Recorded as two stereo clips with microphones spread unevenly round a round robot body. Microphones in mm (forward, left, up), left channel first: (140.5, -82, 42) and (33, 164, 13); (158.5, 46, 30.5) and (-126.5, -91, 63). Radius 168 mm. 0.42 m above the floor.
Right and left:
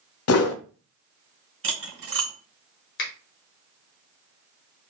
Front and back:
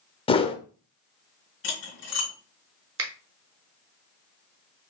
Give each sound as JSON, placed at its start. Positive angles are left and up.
{"t": 0.3, "sound": "a whoosh", "azimuth_deg": -40, "distance_m": 0.6}
{"t": 1.6, "sound": "cutlery clinking", "azimuth_deg": 80, "distance_m": 1.7}
{"t": 3.0, "sound": "a finger snap", "azimuth_deg": -110, "distance_m": 1.0}